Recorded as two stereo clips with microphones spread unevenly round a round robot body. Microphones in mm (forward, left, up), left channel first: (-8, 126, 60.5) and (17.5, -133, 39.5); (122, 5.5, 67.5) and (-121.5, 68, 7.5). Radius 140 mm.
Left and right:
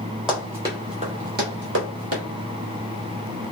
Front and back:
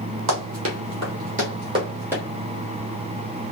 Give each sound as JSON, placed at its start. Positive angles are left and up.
{"t": 0.3, "sound": "running footsteps", "azimuth_deg": -175, "distance_m": 1.1}